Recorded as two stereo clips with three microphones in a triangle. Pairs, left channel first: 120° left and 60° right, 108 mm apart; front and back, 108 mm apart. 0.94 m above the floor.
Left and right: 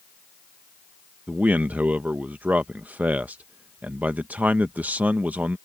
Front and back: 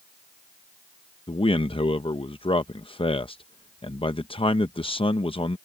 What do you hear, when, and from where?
1.3 s a man speaking: 15° left